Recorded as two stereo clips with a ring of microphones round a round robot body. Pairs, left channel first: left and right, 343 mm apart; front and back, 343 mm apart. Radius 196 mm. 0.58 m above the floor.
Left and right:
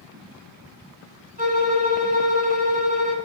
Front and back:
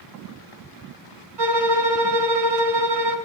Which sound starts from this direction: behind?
A violin, at 1.4 s.